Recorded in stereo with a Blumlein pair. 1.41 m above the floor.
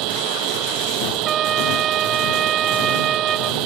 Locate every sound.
0.0 s a machine running: 40° right
1.2 s a trumpet: 25° right